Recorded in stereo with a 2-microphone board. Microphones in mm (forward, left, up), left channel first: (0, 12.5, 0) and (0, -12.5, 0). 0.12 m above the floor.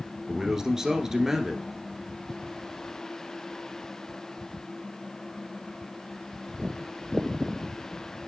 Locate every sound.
0.3 s a man speaking: 25° right (ahead or behind), 1.4 m